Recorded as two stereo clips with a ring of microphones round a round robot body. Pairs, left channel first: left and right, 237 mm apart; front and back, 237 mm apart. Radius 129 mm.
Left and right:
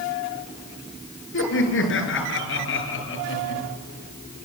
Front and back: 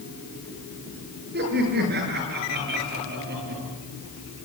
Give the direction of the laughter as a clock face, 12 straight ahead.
8 o'clock.